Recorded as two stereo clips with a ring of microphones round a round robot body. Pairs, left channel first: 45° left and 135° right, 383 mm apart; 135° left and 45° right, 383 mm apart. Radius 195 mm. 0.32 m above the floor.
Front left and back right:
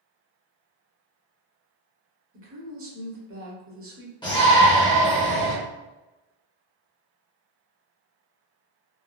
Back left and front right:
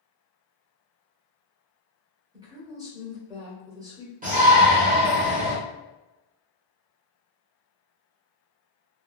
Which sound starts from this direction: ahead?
A shout, at 4.2 s.